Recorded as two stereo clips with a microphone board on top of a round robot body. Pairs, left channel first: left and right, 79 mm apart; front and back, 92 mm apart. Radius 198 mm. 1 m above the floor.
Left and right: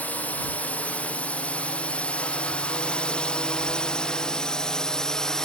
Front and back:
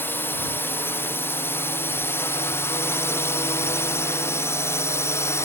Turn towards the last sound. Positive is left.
turn(degrees=15)